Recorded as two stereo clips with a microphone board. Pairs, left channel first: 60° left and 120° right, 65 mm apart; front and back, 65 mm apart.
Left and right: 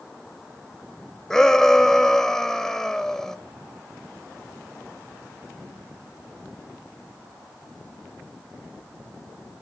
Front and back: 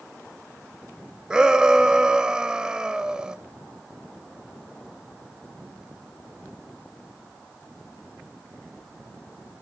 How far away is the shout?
About 1.1 m.